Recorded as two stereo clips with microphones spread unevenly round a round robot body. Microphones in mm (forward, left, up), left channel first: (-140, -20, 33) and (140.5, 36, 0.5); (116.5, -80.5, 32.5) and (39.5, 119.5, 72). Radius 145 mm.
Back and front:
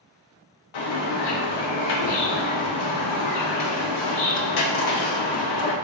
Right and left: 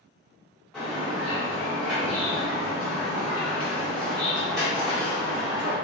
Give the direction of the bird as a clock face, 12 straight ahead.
5 o'clock.